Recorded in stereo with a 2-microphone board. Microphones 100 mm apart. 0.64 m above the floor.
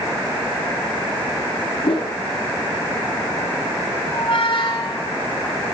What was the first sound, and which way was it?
A whoosh, 60° left (ahead or behind).